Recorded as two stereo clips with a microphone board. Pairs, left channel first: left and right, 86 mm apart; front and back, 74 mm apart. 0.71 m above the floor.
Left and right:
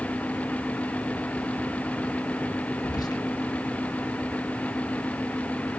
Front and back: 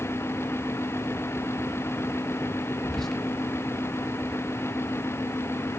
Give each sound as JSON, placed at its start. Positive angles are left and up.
{"t": 2.8, "sound": "whispering", "azimuth_deg": 85, "distance_m": 0.6}